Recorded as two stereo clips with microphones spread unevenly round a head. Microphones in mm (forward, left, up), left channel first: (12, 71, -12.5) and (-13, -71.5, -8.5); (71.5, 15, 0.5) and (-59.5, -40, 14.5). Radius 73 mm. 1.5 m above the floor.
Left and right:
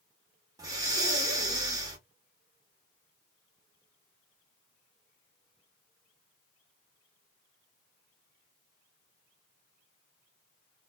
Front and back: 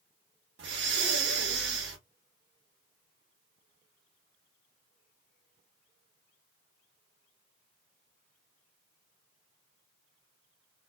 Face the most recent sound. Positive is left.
turn(degrees=-165)